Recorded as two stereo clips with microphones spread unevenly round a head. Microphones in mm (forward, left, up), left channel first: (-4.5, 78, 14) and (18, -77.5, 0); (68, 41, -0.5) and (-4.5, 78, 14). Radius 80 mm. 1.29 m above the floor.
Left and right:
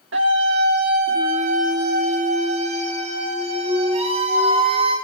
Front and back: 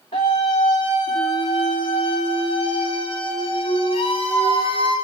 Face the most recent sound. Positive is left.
turn(degrees=-25)